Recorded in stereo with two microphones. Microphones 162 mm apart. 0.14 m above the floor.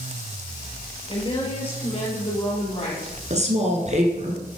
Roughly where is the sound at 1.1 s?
Left.